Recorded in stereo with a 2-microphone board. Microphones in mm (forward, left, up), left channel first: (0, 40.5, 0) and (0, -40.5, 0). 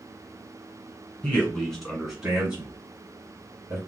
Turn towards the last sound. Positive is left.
turn(degrees=-30)  # may be behind; listen again after turning